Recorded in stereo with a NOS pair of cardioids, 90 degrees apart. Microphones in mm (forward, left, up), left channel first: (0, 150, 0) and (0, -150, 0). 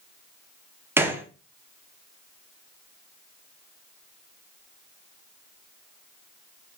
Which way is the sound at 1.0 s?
5° right.